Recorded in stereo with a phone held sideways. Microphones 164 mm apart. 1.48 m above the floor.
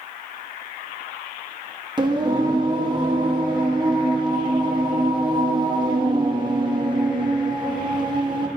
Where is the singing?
25° right (ahead or behind), 1.0 m.